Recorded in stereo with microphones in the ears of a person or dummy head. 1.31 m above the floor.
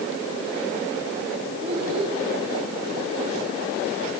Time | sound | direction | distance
1.6 | a child speaking | 35° right (ahead or behind) | 5.5 m